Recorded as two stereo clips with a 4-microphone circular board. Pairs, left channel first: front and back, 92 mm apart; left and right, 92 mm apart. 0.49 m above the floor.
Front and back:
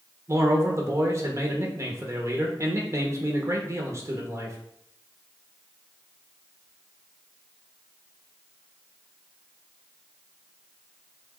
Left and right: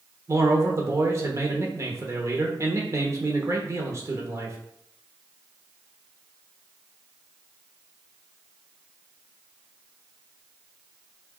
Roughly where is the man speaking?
Behind right.